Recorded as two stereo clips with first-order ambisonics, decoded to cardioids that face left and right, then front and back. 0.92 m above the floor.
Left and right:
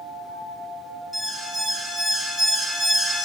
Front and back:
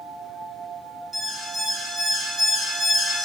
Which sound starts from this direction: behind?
An alarm, at 1.1 s.